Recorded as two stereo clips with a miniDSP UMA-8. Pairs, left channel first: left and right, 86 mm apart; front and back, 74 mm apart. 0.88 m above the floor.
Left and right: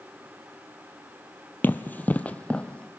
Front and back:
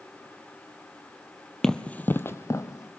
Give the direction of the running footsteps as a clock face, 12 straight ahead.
9 o'clock.